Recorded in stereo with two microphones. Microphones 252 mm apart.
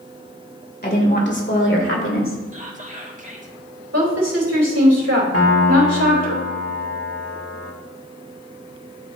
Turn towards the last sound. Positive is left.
turn(degrees=65)  # may be behind; listen again after turning